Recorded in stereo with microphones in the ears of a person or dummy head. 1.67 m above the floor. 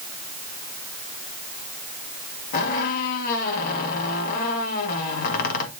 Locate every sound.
2.5 s a squeak: 50° left (ahead or behind), 1.8 m